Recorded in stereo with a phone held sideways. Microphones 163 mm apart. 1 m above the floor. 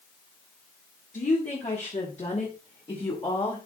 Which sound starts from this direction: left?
A woman speaking, at 1.1 s.